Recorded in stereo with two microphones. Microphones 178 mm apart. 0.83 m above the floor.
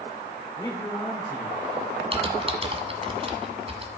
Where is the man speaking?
25° left (ahead or behind), 2.5 m.